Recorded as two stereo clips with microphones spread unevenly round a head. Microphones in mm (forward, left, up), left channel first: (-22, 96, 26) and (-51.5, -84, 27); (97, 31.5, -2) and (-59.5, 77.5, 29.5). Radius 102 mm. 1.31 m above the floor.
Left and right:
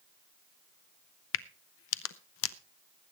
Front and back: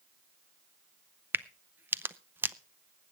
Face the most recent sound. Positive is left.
turn(degrees=90)